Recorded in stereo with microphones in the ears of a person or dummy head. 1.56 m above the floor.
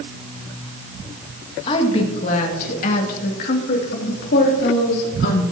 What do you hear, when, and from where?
1.7 s a woman speaking: 30° left (ahead or behind), 2 m; by 5.4 s 65° left (ahead or behind), 3.5 m